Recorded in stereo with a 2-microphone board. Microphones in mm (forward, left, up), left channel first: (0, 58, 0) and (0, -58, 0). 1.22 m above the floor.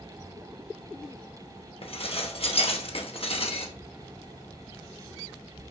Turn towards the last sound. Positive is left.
turn(degrees=55)  # may be behind; listen again after turning